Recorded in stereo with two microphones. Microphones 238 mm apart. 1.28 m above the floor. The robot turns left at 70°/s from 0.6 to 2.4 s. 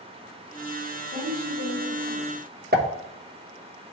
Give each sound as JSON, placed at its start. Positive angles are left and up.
{"t": 1.1, "sound": "a woman speaking", "azimuth_deg": -20, "distance_m": 3.5}
{"t": 2.7, "sound": "a pop", "side_deg": -40, "distance_m": 1.0}